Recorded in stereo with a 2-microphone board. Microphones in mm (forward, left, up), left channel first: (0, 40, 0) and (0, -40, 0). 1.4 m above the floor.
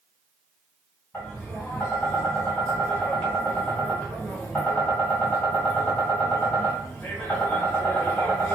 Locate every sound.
1.1 s tapping: 20° left (ahead or behind), 1.7 m